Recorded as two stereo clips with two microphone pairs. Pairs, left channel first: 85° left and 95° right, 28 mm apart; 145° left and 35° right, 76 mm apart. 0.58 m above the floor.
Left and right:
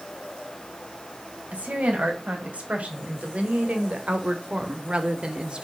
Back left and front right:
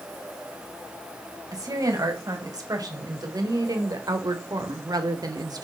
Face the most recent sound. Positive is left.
turn(degrees=-50)